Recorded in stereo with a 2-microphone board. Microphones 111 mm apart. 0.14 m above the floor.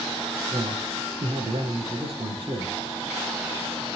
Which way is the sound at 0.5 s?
50° right (ahead or behind).